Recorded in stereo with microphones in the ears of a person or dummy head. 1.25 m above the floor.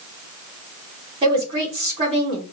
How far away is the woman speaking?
About 3.5 m.